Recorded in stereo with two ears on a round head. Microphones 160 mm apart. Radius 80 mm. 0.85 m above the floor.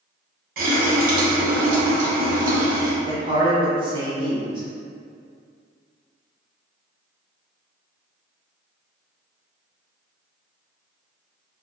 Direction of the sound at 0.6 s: 50° right (ahead or behind).